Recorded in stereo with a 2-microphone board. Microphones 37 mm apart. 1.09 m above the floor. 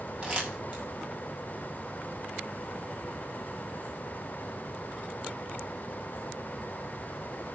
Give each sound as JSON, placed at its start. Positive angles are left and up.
{"t": 0.2, "sound": "crumpling", "side_deg": -30, "distance_m": 7.0}